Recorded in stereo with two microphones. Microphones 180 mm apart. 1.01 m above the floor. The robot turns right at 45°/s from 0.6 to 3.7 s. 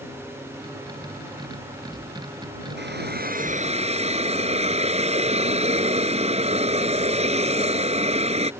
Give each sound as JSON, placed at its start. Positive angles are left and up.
{"t": 2.8, "sound": "a hiss", "azimuth_deg": -80}